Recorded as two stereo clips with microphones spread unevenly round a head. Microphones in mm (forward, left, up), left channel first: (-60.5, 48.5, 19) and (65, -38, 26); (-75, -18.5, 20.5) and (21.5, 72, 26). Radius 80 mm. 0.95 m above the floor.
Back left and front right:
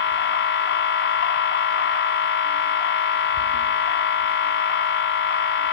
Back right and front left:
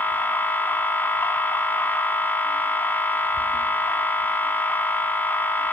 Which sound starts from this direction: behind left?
A machine running, at 0.0 s.